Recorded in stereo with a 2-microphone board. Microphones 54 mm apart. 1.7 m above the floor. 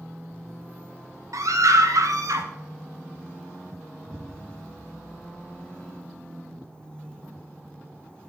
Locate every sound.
1.3 s a scream: 75° right (ahead or behind), 2 m
4.1 s an explosion: 20° right (ahead or behind), 0.8 m